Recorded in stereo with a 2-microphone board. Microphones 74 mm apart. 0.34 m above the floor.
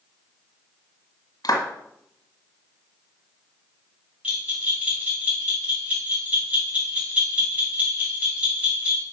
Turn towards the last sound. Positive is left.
turn(degrees=-20)  # may be behind; listen again after turning